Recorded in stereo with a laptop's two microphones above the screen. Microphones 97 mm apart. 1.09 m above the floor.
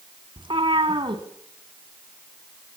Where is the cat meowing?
60° right (ahead or behind), 2 m.